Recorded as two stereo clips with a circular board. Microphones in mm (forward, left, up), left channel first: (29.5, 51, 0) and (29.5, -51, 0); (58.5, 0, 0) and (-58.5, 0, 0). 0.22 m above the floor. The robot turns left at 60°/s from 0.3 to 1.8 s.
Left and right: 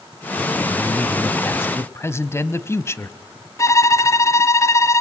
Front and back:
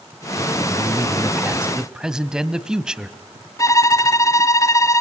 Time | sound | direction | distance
0.7 | a man speaking | 170° left | 1.2 m
3.6 | a violin | 50° left | 1.5 m